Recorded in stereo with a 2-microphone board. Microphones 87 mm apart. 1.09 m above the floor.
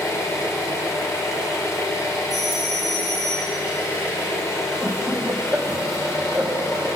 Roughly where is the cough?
No cough in this recording.